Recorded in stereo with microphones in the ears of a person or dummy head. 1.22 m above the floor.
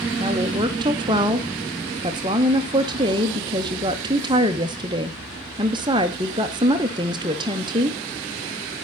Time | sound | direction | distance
0.2 | a woman speaking | 25° right (ahead or behind) | 0.6 m